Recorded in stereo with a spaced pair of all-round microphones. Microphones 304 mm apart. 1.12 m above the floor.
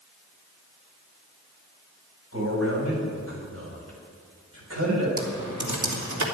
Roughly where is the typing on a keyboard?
Right.